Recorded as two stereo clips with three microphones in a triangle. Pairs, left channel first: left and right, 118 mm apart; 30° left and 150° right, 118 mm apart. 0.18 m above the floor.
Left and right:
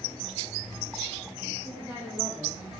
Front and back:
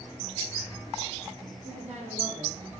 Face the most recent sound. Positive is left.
turn(degrees=-170)